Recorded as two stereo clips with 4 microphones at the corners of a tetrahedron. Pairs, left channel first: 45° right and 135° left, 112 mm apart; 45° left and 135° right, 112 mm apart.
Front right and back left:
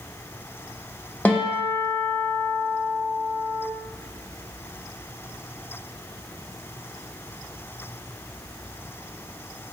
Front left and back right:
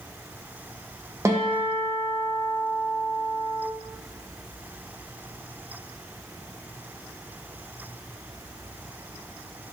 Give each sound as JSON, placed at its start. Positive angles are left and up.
{"t": 1.2, "sound": "a guitar", "azimuth_deg": -110, "distance_m": 0.5}